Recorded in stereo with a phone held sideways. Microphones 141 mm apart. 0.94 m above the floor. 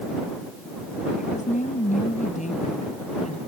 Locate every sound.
1.2 s a woman speaking: 65° left (ahead or behind); by 3.4 s 55° left (ahead or behind)